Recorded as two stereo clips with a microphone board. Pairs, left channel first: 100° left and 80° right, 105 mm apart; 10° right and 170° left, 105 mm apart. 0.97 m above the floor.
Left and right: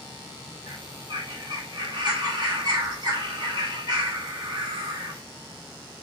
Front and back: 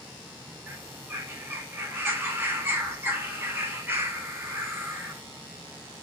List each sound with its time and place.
0.7 s a bird: 120° right, 0.9 m